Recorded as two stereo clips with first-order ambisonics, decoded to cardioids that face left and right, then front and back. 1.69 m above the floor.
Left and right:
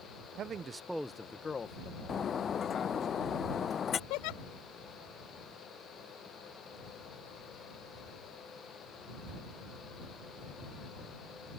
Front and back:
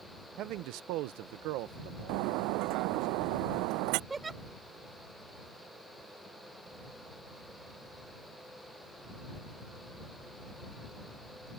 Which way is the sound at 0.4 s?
140° right.